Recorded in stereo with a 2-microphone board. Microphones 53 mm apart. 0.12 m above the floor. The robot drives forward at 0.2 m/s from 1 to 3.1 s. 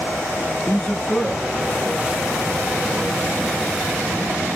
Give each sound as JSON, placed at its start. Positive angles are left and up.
{"t": 0.7, "sound": "a man speaking", "side_deg": 25, "distance_m": 1.3}